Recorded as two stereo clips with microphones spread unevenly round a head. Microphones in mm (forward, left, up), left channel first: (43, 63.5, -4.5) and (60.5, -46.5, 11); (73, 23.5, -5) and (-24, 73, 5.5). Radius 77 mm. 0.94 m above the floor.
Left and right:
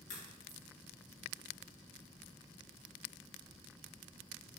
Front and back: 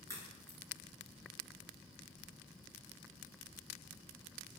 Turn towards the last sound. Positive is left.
turn(degrees=95)